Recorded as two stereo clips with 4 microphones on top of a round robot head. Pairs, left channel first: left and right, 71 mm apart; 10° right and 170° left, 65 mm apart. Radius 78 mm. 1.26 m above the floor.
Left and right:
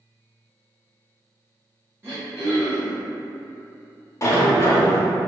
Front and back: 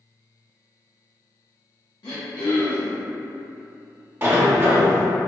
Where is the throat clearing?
30° right, 0.7 m.